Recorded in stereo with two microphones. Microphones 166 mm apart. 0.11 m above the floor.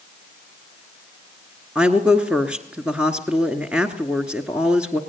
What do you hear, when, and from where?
1.8 s a woman speaking: 5° right (ahead or behind), 1.3 m